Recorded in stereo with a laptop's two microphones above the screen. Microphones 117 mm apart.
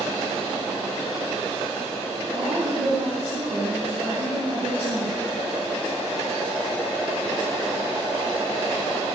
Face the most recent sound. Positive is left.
turn(degrees=-80)